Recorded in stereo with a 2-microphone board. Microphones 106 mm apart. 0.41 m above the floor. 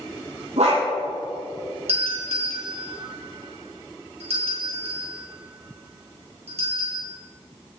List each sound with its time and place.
0.6 s a dog barking: 85° right, 6 m
1.9 s a doorbell: 75° right (ahead or behind), 6 m